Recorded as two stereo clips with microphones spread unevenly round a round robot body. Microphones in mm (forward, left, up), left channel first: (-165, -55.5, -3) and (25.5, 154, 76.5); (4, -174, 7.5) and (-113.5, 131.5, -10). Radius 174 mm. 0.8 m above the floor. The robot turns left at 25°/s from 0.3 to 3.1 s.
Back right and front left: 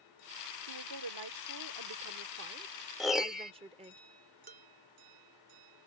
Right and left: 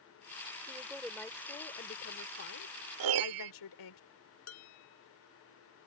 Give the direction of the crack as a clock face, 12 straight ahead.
No crack in this recording.